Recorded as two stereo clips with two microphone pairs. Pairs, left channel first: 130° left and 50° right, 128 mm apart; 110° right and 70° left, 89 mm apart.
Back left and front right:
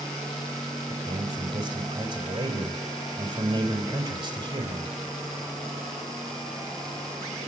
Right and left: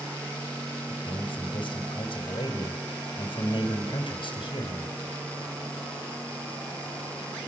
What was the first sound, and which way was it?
A man speaking, 90° right.